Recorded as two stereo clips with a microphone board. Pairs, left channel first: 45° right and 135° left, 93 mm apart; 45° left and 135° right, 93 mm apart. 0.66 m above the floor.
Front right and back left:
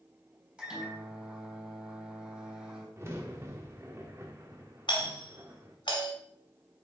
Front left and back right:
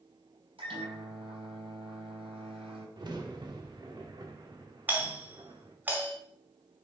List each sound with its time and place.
0.6 s a microwave: 145° right, 4 m
3.0 s a crack: 165° right, 1.2 m
4.9 s a doorbell: 65° right, 2 m